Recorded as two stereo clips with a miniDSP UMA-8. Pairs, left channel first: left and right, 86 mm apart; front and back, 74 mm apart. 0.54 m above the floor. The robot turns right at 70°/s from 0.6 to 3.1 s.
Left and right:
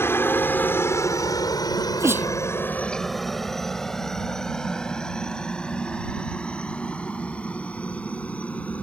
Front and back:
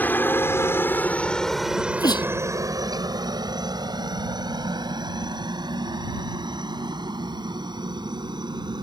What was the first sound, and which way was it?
A helicopter, 50° left.